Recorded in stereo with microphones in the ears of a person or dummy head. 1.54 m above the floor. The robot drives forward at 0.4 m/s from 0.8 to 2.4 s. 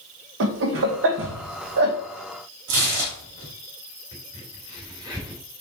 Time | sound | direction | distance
0.4 | laughter | 70° right (ahead or behind) | 1.3 m
2.7 | tearing paper | 70° right (ahead or behind) | 4 m
4.1 | a crack | 15° right (ahead or behind) | 2.5 m